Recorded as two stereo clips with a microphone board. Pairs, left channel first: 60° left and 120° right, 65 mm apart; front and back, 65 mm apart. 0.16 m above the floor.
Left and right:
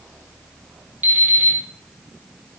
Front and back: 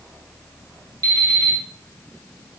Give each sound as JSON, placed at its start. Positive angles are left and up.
{"t": 1.0, "sound": "an alarm clock", "azimuth_deg": 180, "distance_m": 3.5}